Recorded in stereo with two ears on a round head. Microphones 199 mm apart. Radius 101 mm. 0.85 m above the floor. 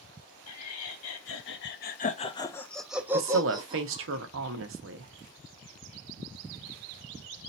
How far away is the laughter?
About 1.1 m.